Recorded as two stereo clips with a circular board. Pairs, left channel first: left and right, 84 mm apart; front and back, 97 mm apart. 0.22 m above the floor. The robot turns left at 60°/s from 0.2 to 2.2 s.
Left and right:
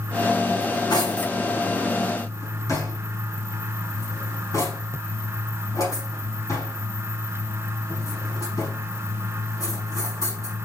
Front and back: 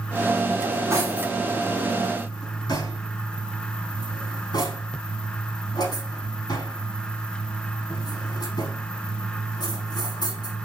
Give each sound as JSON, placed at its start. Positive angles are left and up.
{"t": 0.6, "sound": "cutlery clinking", "azimuth_deg": 135, "distance_m": 6.0}